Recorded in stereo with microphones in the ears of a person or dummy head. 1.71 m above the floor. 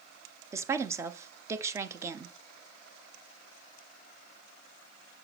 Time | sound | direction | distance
0.5 | a woman speaking | 20° right (ahead or behind) | 1.0 m